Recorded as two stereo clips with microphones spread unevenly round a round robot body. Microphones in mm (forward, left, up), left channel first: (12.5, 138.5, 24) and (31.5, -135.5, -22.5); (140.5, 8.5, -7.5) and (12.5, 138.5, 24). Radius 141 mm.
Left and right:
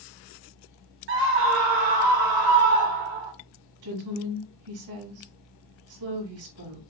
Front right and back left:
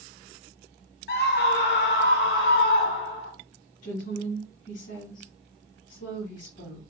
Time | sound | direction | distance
1.1 | a scream | 50° right | 0.9 m
3.8 | a woman speaking | 105° right | 4 m